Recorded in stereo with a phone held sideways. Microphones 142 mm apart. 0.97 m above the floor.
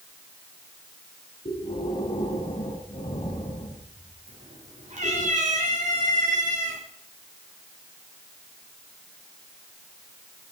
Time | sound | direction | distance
1.4 | breathing | 50° left (ahead or behind) | 7 m
4.3 | a cat meowing | 55° right (ahead or behind) | 5.5 m